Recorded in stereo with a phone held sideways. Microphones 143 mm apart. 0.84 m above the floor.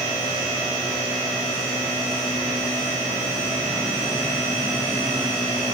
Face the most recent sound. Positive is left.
No sound to turn to.